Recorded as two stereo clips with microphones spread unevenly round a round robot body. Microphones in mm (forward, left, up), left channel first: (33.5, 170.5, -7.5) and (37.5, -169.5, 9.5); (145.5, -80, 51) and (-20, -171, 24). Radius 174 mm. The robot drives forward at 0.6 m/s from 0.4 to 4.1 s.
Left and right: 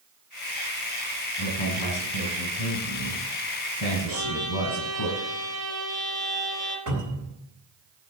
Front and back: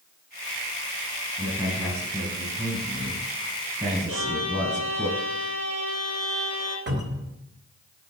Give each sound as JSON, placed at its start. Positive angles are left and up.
{"t": 1.4, "sound": "a man speaking", "azimuth_deg": 120, "distance_m": 5.5}
{"t": 4.1, "sound": "a violin", "azimuth_deg": -140, "distance_m": 4.0}
{"t": 6.9, "sound": "a cupboard door", "azimuth_deg": -135, "distance_m": 4.0}